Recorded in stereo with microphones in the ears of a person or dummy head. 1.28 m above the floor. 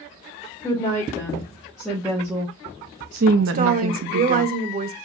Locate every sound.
0.6 s a woman speaking: 10° left (ahead or behind), 1.8 m; by 4.5 s 65° right (ahead or behind), 0.9 m
3.5 s a woman speaking: 35° right (ahead or behind), 0.6 m